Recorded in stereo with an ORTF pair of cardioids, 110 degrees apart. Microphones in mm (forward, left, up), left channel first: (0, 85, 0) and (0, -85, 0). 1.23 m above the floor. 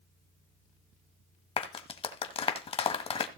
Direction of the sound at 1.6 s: 35° left.